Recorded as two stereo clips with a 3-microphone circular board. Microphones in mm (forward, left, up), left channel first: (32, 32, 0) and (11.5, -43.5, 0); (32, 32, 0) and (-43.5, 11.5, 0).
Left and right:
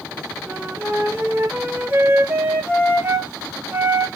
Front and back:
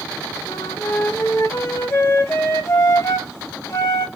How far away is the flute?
About 0.7 m.